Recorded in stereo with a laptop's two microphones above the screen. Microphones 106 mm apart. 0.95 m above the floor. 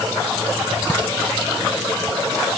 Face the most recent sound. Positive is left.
No sound to turn to.